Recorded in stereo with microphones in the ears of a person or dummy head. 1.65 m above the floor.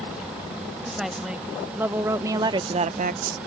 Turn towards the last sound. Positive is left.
turn(degrees=-60)  # may be behind; listen again after turning